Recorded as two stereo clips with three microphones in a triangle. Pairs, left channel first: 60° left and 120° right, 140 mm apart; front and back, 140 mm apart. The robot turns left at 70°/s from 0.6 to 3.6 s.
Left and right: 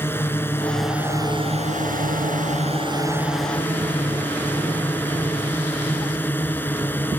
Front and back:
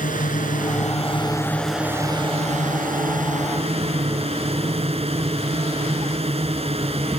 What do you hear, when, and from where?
0.0 s a drone: 15° right; by 7.2 s 135° left